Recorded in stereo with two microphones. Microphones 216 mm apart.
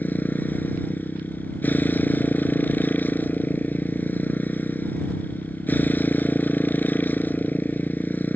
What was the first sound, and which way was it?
A motorcycle, 10° left (ahead or behind).